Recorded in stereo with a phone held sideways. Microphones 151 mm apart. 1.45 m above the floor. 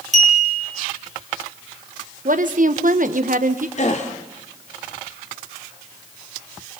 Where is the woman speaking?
60° right (ahead or behind), 1.2 m.